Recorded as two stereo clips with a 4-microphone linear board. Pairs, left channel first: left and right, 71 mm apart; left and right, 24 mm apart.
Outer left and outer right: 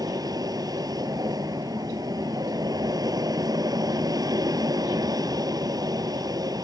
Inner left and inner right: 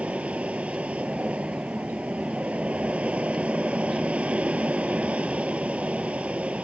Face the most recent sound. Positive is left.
turn(degrees=-70)  # may be behind; listen again after turning